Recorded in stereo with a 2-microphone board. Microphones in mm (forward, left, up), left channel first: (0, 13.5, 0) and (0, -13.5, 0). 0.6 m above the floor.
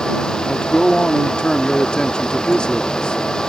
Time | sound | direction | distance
0.5 | a man speaking | 35° left (ahead or behind) | ?